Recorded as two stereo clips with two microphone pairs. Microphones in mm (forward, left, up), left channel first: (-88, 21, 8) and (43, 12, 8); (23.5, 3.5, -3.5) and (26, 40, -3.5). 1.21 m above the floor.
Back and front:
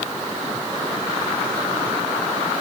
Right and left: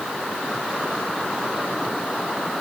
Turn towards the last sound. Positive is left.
No sound to turn to.